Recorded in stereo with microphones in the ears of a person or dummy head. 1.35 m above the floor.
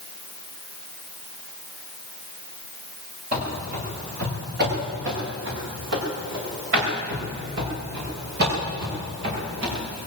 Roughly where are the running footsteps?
Right.